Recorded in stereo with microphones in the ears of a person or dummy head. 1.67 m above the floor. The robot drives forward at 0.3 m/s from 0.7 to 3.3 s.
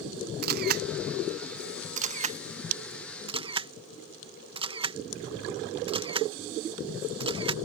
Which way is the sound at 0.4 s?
55° right (ahead or behind).